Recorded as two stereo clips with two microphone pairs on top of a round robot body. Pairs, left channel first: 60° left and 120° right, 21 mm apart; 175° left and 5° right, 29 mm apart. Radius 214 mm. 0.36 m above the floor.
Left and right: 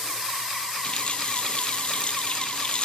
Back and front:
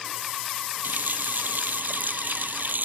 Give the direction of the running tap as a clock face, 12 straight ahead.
12 o'clock.